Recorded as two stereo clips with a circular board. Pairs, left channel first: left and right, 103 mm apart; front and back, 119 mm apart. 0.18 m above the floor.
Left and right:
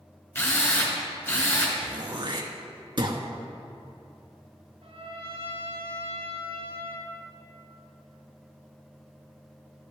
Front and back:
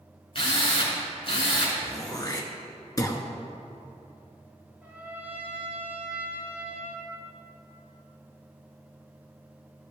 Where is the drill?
30° left, 1.9 m.